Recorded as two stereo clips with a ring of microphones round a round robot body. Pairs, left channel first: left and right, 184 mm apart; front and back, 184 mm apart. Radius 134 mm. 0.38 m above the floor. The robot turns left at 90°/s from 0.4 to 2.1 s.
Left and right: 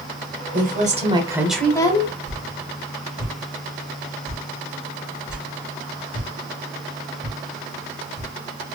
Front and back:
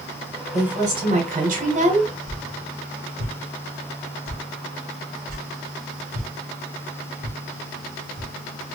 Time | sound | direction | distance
0.5 | a woman speaking | 90° right | 1.5 m
2.3 | a whoosh | 175° right | 2.5 m